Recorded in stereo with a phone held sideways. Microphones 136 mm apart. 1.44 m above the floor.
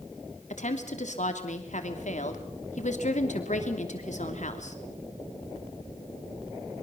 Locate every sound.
0.5 s a woman speaking: 70° left (ahead or behind), 3 m